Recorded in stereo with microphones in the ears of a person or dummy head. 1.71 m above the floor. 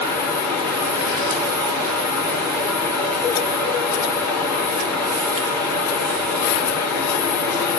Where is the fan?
10° left (ahead or behind), 4.5 m.